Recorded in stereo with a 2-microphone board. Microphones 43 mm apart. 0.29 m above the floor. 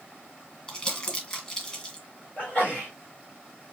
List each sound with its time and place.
0.7 s crumpling: 20° left (ahead or behind), 1.3 m
2.4 s a sneeze: 50° left (ahead or behind), 2 m